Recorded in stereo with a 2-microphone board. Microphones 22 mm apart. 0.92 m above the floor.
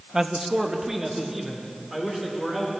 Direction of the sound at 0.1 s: 30° right (ahead or behind).